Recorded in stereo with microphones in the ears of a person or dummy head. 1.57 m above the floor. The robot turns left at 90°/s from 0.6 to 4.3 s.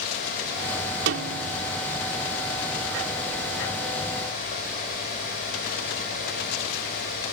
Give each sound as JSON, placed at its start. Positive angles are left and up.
{"t": 1.1, "sound": "a snare drum", "azimuth_deg": -70}